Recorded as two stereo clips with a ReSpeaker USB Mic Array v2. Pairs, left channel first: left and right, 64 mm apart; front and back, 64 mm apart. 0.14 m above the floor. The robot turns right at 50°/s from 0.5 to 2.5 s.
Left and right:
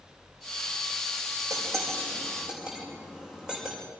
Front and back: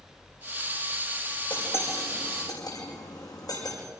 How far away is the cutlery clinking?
About 6 m.